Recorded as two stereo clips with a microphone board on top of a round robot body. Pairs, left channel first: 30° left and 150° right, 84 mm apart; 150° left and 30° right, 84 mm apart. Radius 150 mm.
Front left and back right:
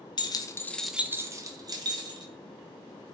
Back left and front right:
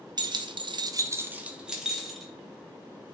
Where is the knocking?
No knocking in this recording.